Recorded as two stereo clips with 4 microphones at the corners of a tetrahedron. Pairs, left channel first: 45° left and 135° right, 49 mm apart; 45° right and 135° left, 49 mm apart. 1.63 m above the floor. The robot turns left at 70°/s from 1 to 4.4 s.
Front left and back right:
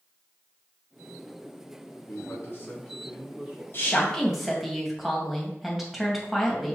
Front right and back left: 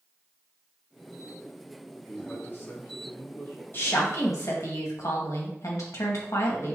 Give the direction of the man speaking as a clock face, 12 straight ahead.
11 o'clock.